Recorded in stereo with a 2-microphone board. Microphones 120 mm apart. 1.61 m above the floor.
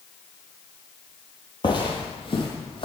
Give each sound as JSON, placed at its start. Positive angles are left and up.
{"t": 1.6, "sound": "footsteps", "side_deg": 40, "distance_m": 2.0}